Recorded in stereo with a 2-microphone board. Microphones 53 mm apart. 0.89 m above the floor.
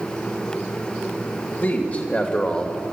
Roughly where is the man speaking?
Left.